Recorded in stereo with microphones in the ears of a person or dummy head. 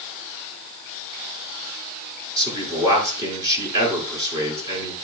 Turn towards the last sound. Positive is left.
turn(degrees=-25)  # may be behind; listen again after turning